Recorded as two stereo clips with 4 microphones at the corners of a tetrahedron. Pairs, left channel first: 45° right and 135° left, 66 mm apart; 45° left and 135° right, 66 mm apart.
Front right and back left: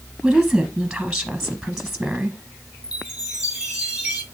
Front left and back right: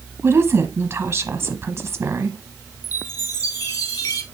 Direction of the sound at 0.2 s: 145° right.